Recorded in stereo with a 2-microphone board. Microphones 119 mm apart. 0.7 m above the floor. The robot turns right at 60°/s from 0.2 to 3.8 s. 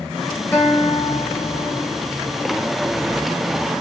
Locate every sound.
0.5 s a guitar: 15° left, 4 m; by 2.0 s 105° left, 4 m